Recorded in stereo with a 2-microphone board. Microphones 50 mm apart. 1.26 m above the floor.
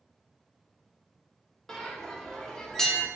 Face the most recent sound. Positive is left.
turn(degrees=10)  # may be behind; listen again after turning